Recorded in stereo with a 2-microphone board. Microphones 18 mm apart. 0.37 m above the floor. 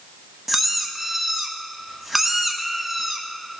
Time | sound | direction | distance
0.5 | a squeak | centre (ahead or behind) | 1.1 m